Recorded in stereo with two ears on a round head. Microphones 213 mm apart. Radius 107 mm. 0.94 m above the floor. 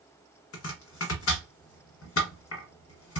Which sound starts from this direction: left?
Chopping, at 0.5 s.